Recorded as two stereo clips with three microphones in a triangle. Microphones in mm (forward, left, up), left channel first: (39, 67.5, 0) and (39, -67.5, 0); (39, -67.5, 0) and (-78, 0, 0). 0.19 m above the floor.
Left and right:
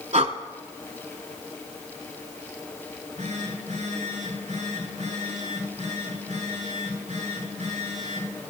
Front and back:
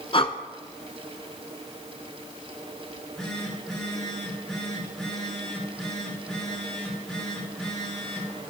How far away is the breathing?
About 1.1 m.